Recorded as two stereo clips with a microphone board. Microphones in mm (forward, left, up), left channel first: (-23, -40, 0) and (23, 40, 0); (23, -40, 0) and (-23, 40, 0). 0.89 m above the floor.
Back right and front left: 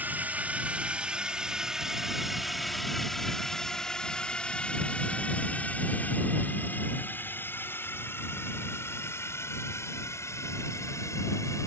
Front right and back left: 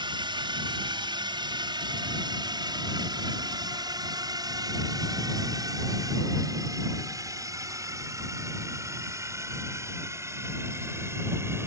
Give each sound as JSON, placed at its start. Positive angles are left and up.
{"t": 0.0, "sound": "a drone", "azimuth_deg": 130}